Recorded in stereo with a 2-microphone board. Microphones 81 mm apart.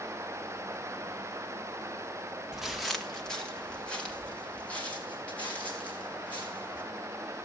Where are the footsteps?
5° right (ahead or behind), 0.8 m; by 6.8 s 20° left (ahead or behind), 6.5 m.